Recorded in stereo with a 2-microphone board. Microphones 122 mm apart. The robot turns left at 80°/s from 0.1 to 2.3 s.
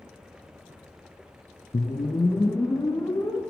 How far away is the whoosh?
About 0.9 m.